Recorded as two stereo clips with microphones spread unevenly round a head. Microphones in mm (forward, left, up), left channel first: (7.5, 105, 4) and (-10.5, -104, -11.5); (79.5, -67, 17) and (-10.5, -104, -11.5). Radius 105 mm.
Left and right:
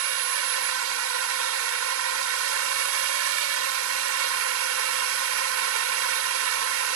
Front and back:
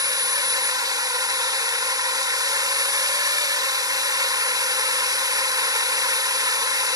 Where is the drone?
110° right.